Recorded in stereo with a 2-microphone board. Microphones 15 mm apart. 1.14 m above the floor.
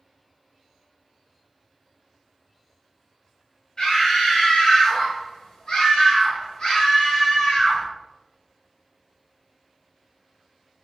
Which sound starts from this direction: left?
A scream, at 3.8 s.